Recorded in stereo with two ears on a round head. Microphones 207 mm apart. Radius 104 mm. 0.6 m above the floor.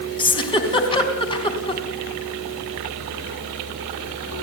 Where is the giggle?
25° left (ahead or behind), 4 m.